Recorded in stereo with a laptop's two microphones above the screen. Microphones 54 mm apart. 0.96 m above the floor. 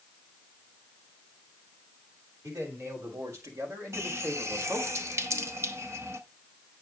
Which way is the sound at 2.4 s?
75° right (ahead or behind).